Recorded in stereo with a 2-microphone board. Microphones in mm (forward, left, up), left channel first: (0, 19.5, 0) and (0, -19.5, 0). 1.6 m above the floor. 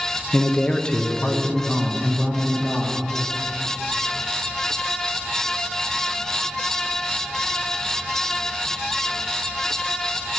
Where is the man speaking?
40° left (ahead or behind), 0.7 m; by 3.0 s 5° left (ahead or behind), 2.5 m.